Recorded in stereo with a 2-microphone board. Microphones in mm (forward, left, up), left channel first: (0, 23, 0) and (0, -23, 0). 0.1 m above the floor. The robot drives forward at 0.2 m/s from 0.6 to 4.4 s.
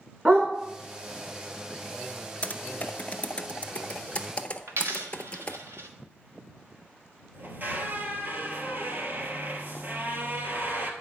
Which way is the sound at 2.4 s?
35° left (ahead or behind).